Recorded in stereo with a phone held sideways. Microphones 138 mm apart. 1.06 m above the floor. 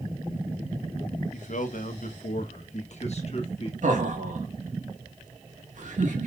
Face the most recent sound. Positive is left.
turn(degrees=-65)  # may be behind; listen again after turning